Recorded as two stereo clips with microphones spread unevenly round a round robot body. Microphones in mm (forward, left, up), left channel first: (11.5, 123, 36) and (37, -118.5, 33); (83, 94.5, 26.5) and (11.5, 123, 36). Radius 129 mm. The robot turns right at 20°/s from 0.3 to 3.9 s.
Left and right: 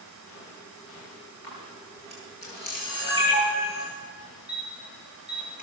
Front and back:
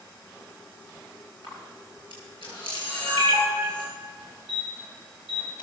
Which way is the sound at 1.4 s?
140° left.